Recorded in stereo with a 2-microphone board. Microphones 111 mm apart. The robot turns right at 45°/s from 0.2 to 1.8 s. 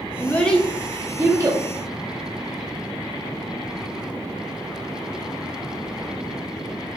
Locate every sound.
0.2 s a child speaking: 20° left (ahead or behind), 0.5 m; by 1.6 s 35° right (ahead or behind), 0.5 m